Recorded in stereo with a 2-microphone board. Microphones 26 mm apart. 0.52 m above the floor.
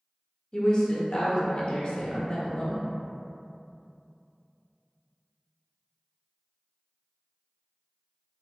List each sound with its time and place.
0.5 s a woman speaking: 30° left (ahead or behind), 0.8 m